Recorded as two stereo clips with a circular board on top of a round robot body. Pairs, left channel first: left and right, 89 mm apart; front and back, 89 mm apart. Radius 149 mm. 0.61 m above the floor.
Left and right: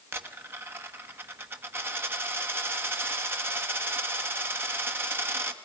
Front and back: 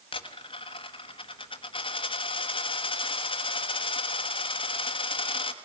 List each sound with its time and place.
0.1 s a dropped coin: 25° right, 1.2 m